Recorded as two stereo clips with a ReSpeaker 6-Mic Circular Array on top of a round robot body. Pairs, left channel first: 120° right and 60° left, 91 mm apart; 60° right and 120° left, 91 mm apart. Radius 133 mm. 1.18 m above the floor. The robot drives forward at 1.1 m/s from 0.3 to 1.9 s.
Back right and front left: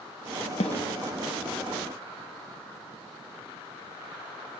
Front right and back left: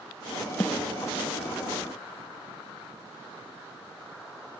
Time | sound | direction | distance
0.6 | a snare drum | 130° right | 0.7 m